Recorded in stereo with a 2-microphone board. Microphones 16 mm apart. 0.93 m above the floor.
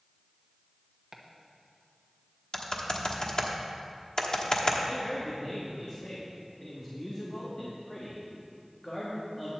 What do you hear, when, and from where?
1.1 s chopping: 25° right (ahead or behind), 1.1 m
2.5 s typing on a keyboard: 50° left (ahead or behind), 1.2 m
4.8 s a man speaking: 30° left (ahead or behind), 1.5 m